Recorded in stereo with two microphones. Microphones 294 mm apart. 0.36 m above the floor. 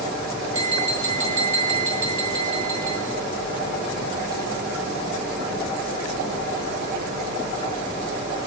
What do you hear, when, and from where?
0.5 s tapping: 70° right (ahead or behind), 5 m